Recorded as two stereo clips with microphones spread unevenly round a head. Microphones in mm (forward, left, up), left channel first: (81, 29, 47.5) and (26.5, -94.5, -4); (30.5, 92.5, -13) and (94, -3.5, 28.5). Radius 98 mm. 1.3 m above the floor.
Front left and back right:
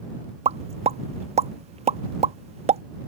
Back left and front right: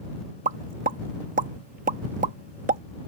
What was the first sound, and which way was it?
A pop, 70° right.